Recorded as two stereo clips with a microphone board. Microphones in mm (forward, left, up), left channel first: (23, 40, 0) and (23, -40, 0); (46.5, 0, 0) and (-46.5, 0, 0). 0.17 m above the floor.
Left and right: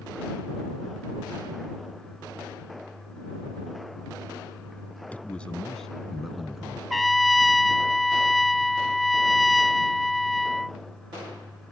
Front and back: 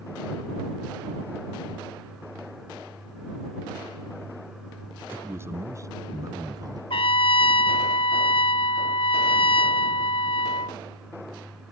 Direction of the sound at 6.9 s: Straight ahead.